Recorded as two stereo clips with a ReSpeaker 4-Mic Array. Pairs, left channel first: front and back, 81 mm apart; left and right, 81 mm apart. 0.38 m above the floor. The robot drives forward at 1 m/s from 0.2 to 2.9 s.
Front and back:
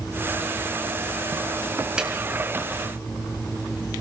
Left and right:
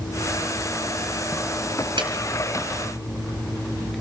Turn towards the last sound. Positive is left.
turn(degrees=-115)